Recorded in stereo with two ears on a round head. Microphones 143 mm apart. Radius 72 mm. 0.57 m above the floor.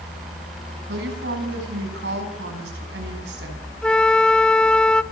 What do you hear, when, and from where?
0.9 s a woman speaking: 80° right, 5.5 m
3.8 s a flute: 5° left (ahead or behind), 0.6 m